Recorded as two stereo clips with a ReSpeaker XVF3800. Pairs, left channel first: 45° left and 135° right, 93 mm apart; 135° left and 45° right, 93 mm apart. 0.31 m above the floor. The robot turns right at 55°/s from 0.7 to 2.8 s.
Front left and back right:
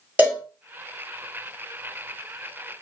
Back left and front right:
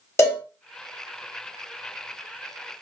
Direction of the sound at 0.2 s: 160° left.